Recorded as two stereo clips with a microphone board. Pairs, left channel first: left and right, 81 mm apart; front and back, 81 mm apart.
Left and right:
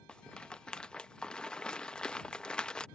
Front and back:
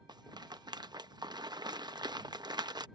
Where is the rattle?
165° left.